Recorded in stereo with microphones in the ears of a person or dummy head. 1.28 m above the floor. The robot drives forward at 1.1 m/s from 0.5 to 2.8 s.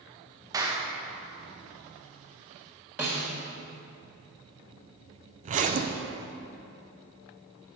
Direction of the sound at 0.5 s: 20° right (ahead or behind).